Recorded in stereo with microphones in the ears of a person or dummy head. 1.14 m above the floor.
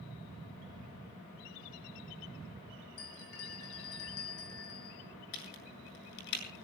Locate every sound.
3.0 s a bell: 75° left (ahead or behind), 8 m
5.3 s a crack: 55° left (ahead or behind), 7.5 m